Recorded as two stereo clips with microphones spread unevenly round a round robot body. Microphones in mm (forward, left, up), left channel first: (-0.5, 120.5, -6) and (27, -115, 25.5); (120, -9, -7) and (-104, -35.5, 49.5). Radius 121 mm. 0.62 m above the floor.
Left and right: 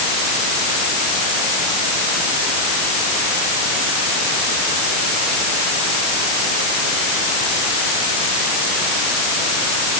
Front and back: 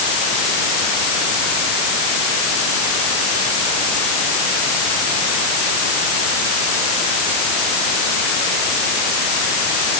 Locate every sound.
Only background noise.